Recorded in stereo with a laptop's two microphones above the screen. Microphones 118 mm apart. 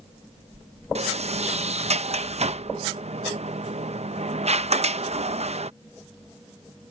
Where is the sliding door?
65° right (ahead or behind).